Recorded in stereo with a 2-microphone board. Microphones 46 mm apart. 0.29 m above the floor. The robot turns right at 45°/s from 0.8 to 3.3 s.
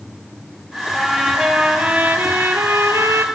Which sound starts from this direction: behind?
A trumpet, at 0.9 s.